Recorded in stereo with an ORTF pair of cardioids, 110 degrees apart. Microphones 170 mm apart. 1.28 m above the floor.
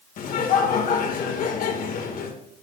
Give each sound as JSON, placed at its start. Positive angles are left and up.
{"t": 0.2, "sound": "laughter", "azimuth_deg": 55, "distance_m": 1.8}